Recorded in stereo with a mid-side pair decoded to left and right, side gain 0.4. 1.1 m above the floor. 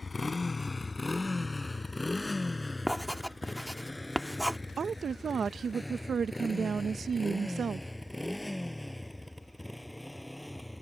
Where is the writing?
Straight ahead.